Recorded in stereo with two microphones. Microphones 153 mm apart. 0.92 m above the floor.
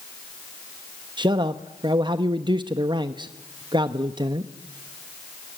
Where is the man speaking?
30° right (ahead or behind), 0.7 m.